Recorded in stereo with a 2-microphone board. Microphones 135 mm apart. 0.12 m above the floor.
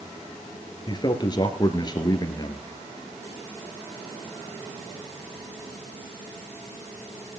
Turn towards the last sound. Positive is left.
turn(degrees=30)  # may be behind; listen again after turning